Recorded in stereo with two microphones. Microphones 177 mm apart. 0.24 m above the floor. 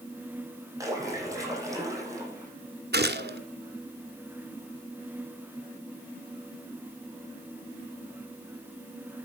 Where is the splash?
20° right (ahead or behind), 7.5 m.